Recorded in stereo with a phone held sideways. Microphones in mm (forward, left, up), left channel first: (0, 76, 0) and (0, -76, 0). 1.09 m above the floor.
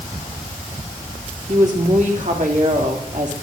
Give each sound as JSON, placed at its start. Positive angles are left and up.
{"t": 1.5, "sound": "a woman speaking", "side_deg": -55, "distance_m": 3.0}